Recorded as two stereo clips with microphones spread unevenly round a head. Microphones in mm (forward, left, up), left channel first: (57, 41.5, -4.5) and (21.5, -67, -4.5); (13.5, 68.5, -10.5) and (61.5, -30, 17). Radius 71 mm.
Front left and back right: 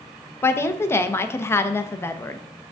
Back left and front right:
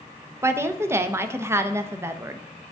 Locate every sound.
0.4 s a woman speaking: 5° left, 0.7 m